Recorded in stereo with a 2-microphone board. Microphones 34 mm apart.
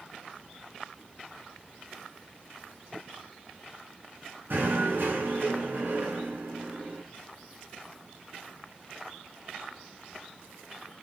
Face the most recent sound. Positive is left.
turn(degrees=-75)  # may be behind; listen again after turning